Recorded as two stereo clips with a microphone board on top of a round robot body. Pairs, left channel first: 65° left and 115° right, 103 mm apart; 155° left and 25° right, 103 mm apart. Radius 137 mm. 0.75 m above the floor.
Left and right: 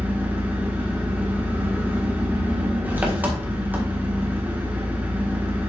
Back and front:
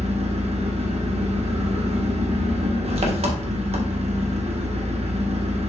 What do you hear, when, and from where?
0.0 s an engine running: 40° right, 1.4 m